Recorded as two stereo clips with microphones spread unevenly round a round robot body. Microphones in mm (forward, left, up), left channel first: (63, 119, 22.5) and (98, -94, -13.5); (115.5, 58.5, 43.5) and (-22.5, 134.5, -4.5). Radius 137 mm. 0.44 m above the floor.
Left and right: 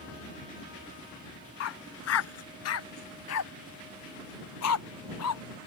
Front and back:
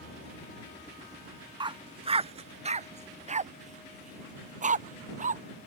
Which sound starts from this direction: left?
A dog barking, at 1.6 s.